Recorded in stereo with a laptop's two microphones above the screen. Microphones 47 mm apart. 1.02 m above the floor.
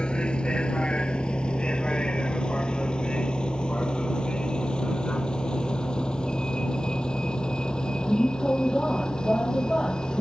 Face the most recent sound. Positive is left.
turn(degrees=20)  # may be behind; listen again after turning